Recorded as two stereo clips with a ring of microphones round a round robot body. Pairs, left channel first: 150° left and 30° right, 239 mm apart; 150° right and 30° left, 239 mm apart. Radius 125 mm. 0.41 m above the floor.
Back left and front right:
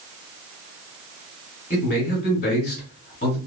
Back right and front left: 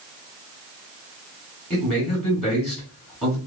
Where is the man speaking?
135° left, 1.5 m.